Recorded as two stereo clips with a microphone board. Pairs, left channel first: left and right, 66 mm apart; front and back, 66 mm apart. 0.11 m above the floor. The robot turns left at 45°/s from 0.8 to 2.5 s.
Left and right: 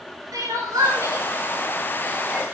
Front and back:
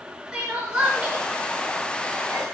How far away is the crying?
About 8.5 m.